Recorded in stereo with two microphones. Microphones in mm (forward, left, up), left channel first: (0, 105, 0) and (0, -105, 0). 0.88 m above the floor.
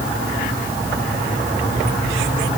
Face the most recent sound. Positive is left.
No sound to turn to.